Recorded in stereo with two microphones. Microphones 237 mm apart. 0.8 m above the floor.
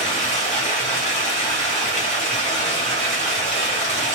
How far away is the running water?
About 1.4 m.